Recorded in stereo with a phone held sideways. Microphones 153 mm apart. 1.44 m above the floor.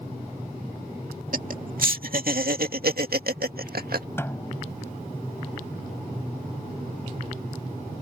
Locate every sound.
1.3 s laughter: 60° right (ahead or behind); by 4.1 s 75° right (ahead or behind)
4.2 s a snare drum: 15° left (ahead or behind)